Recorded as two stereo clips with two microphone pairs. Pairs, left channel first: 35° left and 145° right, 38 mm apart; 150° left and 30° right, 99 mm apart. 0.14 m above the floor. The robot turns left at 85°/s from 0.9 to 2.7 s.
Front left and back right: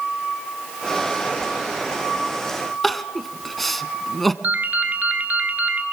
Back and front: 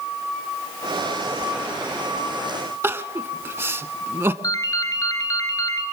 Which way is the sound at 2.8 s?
45° right.